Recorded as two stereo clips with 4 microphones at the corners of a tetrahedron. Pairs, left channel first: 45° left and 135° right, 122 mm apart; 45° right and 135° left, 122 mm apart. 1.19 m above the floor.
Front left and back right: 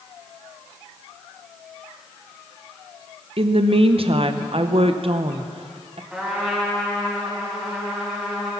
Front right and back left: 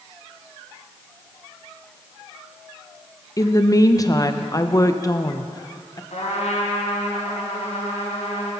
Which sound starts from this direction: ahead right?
A trumpet, at 6.1 s.